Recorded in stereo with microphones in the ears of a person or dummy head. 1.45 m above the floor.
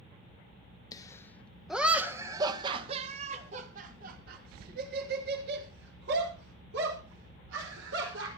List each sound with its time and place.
0.9 s laughter: 20° left (ahead or behind), 1.7 m; by 8.3 s 80° right, 6 m